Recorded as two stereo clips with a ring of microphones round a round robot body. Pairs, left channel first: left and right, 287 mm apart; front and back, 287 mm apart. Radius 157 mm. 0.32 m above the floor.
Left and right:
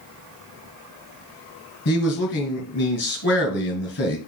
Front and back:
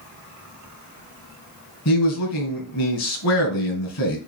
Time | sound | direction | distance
1.9 | a man speaking | 35° left | 2.0 m